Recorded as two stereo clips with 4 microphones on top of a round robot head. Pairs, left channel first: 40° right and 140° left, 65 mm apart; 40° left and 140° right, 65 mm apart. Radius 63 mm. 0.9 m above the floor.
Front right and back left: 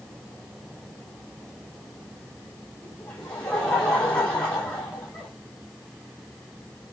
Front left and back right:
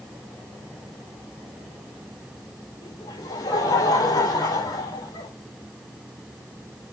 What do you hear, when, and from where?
2.8 s laughter: 40° left, 6.5 m